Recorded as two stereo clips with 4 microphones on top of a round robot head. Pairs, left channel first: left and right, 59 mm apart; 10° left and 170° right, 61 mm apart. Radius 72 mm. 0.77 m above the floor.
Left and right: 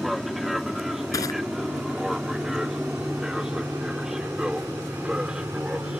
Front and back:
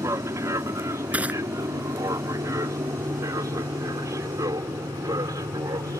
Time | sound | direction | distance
0.0 | an aircraft | straight behind | ?
1.1 | crushing | 125° left | ?